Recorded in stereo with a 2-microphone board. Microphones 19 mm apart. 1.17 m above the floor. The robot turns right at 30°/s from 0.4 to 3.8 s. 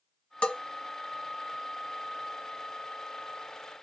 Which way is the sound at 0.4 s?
80° left.